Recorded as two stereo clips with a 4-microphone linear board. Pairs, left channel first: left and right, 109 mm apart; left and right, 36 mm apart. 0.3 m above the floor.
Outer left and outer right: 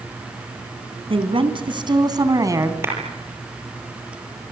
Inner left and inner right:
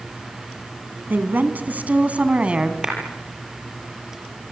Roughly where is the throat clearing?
I don't hear throat clearing.